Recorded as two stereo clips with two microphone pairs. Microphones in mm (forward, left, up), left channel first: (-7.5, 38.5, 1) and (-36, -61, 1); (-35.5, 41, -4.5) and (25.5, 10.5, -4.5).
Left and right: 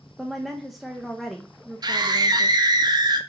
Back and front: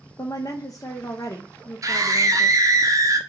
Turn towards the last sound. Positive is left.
turn(degrees=-60)